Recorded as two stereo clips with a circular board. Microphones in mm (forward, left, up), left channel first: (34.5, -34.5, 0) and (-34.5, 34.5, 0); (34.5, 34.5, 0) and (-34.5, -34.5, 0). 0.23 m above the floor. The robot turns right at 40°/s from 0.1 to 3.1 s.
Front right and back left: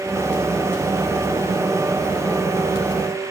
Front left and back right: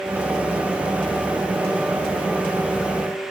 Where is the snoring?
I don't hear snoring.